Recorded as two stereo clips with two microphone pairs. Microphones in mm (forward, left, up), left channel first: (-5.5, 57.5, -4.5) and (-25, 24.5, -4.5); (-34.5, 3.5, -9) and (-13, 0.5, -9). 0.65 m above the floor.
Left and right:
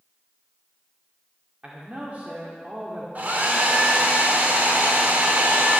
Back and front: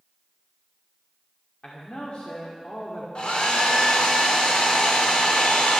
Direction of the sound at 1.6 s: 170° right.